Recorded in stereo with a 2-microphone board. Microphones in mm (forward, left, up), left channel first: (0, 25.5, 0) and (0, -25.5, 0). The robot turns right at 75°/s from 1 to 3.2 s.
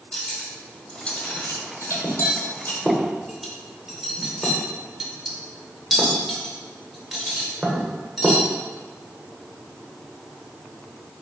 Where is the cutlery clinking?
20° left (ahead or behind), 0.8 m; by 8.4 s 5° right (ahead or behind), 0.8 m.